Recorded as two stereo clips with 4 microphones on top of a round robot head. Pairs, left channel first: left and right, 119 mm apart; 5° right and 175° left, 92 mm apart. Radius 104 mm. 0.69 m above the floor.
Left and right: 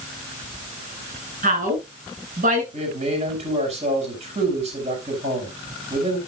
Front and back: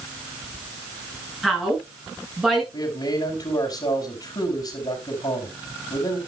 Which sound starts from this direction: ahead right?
A man speaking, at 2.7 s.